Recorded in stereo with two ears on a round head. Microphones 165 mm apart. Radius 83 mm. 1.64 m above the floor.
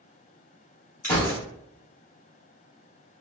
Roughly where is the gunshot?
Centre.